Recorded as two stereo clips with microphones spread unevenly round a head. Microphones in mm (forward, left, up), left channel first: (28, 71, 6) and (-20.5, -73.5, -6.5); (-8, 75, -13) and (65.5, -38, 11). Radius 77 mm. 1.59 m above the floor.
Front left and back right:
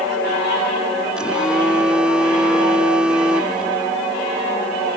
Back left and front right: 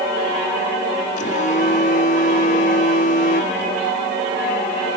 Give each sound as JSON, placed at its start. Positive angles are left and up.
{"t": 1.2, "sound": "a phone buzzing", "azimuth_deg": 165}